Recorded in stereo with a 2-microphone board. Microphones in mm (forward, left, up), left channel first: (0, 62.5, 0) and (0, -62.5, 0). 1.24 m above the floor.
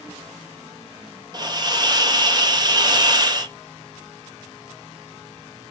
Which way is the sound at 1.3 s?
35° right (ahead or behind).